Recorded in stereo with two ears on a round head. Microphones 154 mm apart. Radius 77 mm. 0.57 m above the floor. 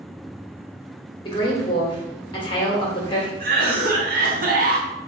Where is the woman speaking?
30° left (ahead or behind), 1.4 m.